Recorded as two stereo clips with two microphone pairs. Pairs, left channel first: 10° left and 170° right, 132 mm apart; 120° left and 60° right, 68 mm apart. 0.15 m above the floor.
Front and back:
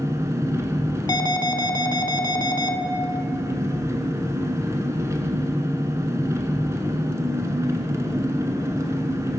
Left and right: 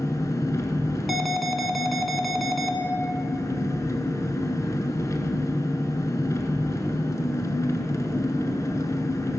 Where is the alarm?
30° left, 0.8 m.